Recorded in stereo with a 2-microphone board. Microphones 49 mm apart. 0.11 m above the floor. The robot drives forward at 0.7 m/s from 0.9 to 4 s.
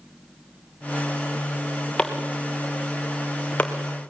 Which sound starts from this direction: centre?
Chopping, at 2.0 s.